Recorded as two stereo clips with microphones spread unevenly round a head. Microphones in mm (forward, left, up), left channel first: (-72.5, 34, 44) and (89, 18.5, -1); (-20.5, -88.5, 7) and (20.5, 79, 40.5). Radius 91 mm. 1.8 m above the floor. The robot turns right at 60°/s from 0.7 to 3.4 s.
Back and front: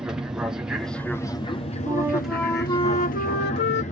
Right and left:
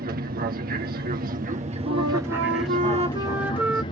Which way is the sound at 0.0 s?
60° left.